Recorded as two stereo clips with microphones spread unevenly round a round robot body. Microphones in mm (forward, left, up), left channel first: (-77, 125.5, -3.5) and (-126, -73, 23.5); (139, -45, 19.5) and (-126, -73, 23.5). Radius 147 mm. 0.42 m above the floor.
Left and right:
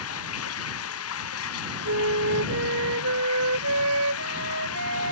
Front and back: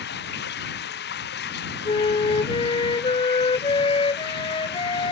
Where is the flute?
65° right.